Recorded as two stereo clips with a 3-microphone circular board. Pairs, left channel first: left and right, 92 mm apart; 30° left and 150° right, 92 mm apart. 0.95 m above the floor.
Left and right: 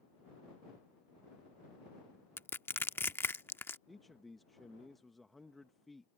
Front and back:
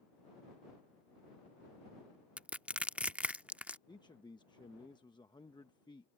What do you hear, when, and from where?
2.4 s crushing: 145° left
3.9 s a man speaking: straight ahead